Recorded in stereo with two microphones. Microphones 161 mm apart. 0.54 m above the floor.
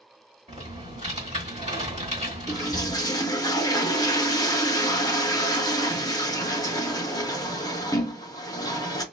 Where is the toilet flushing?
20° left (ahead or behind), 0.6 m.